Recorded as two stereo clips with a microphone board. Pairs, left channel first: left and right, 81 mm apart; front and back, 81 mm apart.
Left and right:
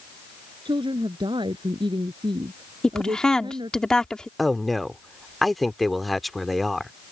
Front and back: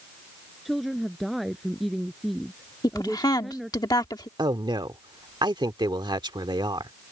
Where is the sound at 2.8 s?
10° left.